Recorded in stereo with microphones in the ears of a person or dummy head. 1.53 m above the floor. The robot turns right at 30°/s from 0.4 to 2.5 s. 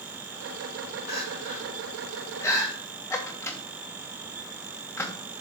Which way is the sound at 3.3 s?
10° left (ahead or behind).